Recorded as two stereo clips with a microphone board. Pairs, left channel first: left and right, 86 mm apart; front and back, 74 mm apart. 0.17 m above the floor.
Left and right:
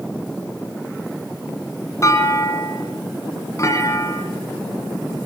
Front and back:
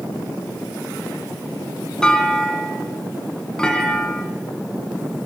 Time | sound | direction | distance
2.0 | a clunk | 75° left | 1.7 m